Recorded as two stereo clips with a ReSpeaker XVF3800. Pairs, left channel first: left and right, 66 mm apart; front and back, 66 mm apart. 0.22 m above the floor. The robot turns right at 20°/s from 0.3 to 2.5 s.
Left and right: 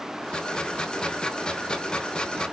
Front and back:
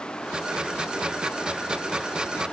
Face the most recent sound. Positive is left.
No sound to turn to.